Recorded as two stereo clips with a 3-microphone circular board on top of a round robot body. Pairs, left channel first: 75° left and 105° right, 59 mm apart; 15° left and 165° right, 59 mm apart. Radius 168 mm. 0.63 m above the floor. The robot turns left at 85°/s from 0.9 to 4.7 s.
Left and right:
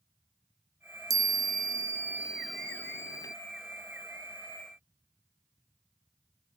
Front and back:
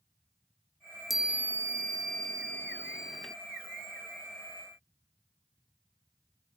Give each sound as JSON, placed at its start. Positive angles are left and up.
{"t": 1.1, "sound": "a chime", "azimuth_deg": -75}